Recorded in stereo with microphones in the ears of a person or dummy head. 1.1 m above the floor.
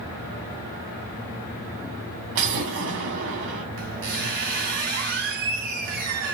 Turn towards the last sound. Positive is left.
turn(degrees=-50)  # may be behind; listen again after turning